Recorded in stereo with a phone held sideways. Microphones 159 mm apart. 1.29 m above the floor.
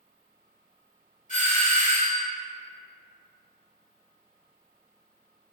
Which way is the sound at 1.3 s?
55° left (ahead or behind).